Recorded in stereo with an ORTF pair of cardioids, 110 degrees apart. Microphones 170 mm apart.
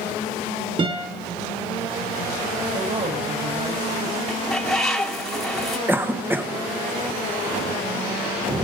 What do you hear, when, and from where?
0.8 s a guitar: 30° right, 5 m
2.7 s a woman speaking: 45° right, 8 m
4.3 s a bird: straight ahead, 2 m
5.9 s a cough: 10° right, 1.7 m